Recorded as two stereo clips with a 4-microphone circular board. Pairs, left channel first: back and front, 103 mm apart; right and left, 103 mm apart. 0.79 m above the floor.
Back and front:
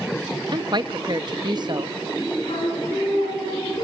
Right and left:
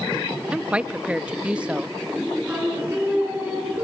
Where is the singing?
165° left, 5 m.